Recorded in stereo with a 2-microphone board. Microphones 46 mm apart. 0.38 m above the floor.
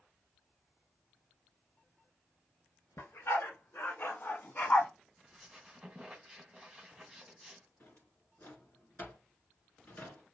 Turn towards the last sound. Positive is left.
turn(degrees=50)  # may be behind; listen again after turning